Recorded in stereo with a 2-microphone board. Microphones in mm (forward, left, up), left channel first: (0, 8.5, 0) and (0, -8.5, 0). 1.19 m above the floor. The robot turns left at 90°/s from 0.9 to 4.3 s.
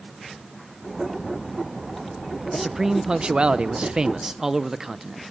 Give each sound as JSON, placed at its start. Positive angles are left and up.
{"t": 2.5, "sound": "a man speaking", "azimuth_deg": 5, "distance_m": 0.7}